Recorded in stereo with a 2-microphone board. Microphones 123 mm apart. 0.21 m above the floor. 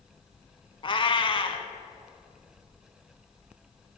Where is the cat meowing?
45° left (ahead or behind), 0.7 m.